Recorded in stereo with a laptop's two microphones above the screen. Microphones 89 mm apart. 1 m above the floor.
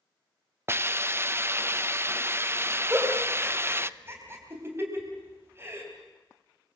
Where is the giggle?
30° right (ahead or behind), 3.5 m.